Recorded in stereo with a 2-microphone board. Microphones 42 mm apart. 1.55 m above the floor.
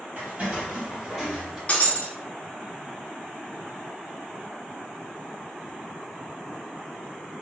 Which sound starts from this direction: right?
Footsteps, at 0.2 s.